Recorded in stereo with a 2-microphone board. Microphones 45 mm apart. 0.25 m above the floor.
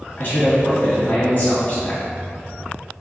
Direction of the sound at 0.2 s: 50° left (ahead or behind).